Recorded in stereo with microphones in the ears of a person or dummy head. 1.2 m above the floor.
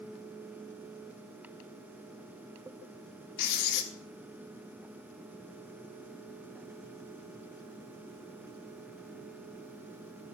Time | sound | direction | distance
3.4 | writing | 65° left (ahead or behind) | 1.4 m